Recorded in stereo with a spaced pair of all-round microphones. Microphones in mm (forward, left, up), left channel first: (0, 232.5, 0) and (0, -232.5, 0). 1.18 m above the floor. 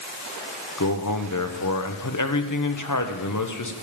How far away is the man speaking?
About 0.7 m.